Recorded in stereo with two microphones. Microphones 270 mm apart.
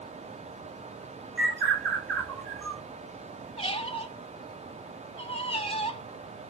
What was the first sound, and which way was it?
A bird, 5° left (ahead or behind).